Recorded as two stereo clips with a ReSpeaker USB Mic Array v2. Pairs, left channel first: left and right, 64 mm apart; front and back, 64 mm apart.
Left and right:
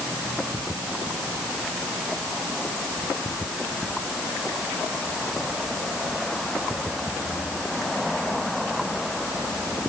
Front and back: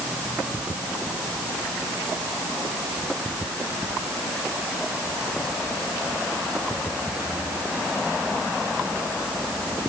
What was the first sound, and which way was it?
Only background noise.